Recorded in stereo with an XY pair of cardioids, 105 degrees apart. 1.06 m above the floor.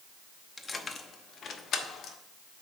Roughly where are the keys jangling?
Ahead left.